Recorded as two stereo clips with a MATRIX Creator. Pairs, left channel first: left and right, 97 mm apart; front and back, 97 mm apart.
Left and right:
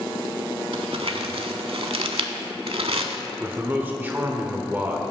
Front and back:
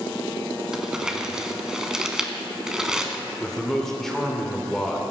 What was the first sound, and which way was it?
Crumpling, 95° right.